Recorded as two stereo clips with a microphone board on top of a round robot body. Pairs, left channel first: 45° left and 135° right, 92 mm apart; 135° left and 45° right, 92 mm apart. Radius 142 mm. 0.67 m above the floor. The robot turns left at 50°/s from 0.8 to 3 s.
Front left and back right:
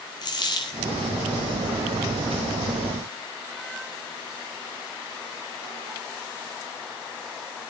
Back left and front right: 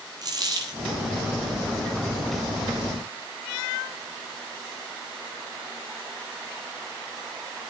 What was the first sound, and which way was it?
A dropped coin, straight ahead.